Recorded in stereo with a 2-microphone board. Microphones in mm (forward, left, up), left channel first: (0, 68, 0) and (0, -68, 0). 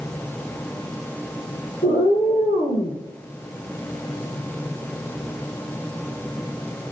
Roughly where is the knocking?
No knocking in this recording.